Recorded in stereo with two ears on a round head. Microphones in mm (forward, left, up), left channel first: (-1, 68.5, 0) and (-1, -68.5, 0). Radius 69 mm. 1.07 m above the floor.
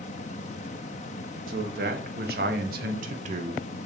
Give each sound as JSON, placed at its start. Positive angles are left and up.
{"t": 1.5, "sound": "a man speaking", "side_deg": -65, "distance_m": 1.9}